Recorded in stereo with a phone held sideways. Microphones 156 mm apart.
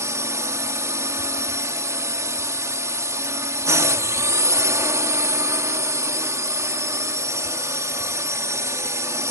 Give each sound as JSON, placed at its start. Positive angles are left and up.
{"t": 0.0, "sound": "a drone", "side_deg": -20}